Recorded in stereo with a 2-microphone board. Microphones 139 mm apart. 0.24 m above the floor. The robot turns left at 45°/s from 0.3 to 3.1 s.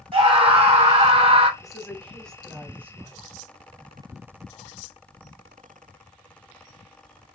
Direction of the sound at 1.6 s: 25° left (ahead or behind).